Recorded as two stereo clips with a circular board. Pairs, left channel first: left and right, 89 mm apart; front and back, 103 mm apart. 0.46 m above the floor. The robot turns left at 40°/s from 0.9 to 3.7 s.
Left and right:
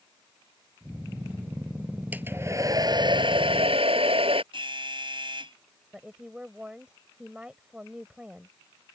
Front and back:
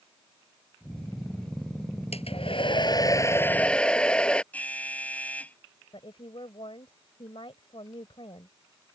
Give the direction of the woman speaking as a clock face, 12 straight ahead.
12 o'clock.